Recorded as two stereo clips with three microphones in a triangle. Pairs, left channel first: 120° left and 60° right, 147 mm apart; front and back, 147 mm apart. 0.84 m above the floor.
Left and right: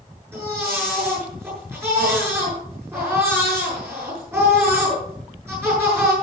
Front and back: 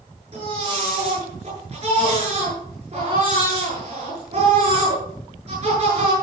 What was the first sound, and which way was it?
A baby crying, 135° right.